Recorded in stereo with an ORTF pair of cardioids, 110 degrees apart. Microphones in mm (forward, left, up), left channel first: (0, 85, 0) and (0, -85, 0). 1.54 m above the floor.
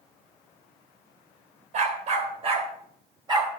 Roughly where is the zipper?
I don't hear a zipper.